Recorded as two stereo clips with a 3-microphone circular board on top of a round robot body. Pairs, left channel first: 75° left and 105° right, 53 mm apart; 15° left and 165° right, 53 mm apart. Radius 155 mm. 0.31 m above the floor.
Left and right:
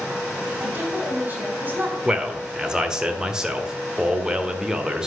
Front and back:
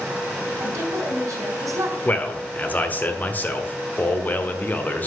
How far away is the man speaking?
About 1.6 m.